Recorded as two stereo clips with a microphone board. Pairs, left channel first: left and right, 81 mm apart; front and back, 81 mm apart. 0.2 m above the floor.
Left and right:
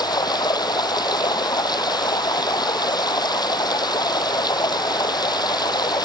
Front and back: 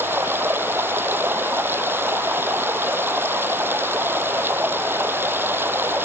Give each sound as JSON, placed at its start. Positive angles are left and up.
{"t": 0.0, "sound": "running water", "azimuth_deg": 120}